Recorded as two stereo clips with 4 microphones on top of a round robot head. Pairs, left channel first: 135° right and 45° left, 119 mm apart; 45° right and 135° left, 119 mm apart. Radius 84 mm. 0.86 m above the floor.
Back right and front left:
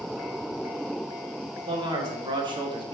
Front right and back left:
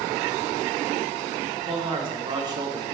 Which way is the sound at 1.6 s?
95° left.